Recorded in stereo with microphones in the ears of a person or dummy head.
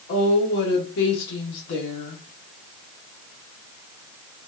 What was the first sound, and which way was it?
A woman speaking, 70° left (ahead or behind).